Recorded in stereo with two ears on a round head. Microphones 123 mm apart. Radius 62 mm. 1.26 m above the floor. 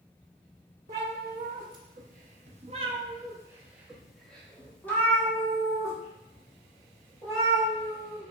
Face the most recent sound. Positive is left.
turn(degrees=30)  # may be behind; listen again after turning